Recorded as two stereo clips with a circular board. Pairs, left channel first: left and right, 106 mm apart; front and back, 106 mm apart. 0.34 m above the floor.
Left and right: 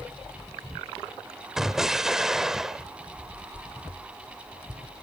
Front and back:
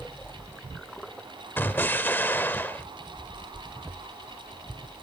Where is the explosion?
15° right, 0.7 m.